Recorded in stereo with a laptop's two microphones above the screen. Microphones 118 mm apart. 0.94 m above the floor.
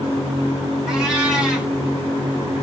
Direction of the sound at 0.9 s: 5° right (ahead or behind).